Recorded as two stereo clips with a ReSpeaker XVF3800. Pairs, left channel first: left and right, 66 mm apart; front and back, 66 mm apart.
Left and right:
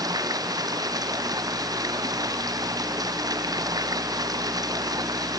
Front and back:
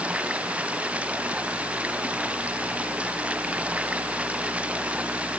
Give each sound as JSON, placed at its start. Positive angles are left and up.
{"t": 0.0, "sound": "running water", "azimuth_deg": -110}